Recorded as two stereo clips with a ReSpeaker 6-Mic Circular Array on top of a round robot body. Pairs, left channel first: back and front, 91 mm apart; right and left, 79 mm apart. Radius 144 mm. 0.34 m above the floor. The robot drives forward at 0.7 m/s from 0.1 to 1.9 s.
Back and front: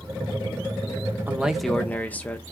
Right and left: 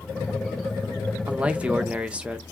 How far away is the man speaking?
About 0.8 m.